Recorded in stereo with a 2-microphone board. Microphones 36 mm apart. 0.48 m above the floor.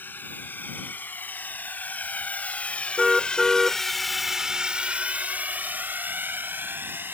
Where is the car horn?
5° left (ahead or behind).